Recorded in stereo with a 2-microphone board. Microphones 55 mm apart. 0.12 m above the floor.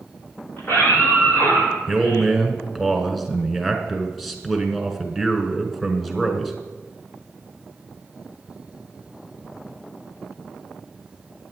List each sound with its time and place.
0.6 s a scream: 40° left (ahead or behind), 5.5 m; by 2.3 s 65° left (ahead or behind), 7 m
1.9 s a man speaking: centre (ahead or behind), 1.3 m